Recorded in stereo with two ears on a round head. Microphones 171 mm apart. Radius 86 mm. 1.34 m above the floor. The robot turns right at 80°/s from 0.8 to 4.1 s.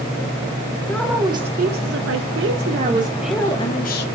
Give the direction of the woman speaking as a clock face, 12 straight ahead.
6 o'clock.